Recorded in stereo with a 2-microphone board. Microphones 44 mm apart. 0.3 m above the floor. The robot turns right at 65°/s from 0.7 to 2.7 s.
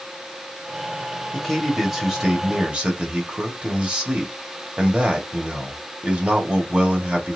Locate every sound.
1.3 s a man speaking: 155° left, 1.6 m; by 7.4 s 120° right, 1.6 m